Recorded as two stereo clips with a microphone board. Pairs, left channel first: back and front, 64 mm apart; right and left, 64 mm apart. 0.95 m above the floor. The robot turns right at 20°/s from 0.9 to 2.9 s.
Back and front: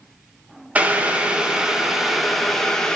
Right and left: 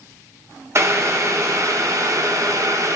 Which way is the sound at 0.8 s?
60° left.